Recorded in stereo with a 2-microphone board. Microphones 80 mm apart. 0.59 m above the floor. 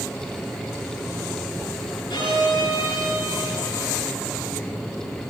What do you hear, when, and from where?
2.1 s a violin: 80° left, 5 m